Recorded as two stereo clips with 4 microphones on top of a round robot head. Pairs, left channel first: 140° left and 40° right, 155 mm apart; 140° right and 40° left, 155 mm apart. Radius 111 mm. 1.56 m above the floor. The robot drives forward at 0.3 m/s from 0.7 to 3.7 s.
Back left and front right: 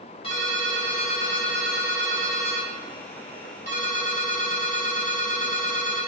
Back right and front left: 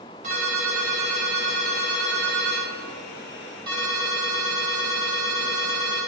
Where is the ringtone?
85° left, 3 m; by 6.1 s 100° left, 3 m.